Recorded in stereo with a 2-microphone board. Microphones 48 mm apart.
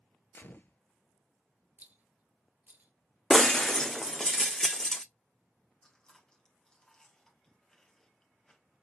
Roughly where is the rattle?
Right.